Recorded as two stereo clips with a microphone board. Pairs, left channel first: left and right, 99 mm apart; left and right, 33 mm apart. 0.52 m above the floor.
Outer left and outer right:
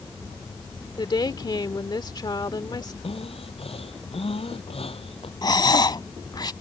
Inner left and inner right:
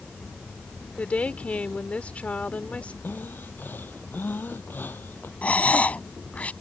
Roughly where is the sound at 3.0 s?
Left.